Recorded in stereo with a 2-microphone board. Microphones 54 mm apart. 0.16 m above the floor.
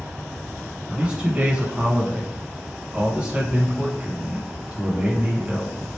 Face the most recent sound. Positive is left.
turn(degrees=-20)  # may be behind; listen again after turning